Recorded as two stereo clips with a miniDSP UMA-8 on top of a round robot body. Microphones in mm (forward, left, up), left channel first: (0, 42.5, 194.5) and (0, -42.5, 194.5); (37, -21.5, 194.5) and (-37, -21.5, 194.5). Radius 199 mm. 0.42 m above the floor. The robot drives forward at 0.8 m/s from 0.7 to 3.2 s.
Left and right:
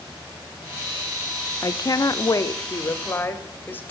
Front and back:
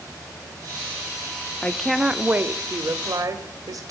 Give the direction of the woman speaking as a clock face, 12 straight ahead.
10 o'clock.